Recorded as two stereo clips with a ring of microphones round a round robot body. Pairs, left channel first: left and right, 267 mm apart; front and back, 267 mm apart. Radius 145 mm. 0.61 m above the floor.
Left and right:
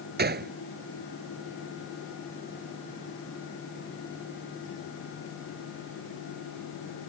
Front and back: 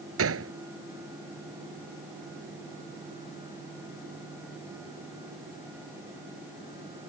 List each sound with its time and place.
0.2 s a gunshot: 145° right